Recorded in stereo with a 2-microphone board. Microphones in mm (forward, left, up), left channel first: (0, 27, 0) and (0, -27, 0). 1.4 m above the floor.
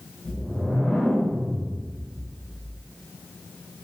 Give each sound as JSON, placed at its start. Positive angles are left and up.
{"t": 0.2, "sound": "a whoosh", "side_deg": 15, "distance_m": 0.6}